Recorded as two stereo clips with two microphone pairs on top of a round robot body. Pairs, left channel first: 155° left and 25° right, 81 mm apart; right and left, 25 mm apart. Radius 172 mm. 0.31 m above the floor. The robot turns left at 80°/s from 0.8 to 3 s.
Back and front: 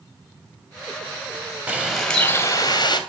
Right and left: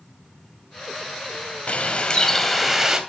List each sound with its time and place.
1.7 s a bird: 90° right, 2.5 m; by 3.0 s 165° left, 2.5 m